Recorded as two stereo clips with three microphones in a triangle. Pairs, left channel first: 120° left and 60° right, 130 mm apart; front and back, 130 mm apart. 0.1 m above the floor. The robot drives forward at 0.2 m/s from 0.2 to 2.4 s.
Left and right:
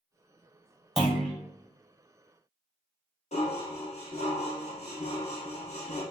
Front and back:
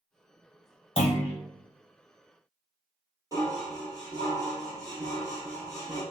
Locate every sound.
1.0 s a clunk: 30° left, 1.4 m
3.3 s dishes clattering: 120° left, 1.8 m